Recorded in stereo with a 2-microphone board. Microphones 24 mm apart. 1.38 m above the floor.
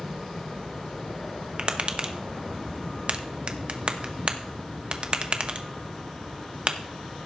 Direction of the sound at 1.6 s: 45° right (ahead or behind).